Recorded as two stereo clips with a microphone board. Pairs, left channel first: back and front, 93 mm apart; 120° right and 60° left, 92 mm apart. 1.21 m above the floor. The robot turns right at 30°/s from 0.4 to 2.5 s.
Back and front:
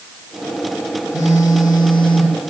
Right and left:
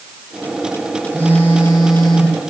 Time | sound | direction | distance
1.1 | a phone buzzing | 125° left | 3 m